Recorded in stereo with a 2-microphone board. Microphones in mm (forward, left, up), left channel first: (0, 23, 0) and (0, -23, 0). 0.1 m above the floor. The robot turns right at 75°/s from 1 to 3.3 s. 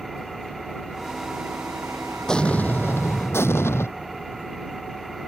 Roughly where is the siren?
No siren in this recording.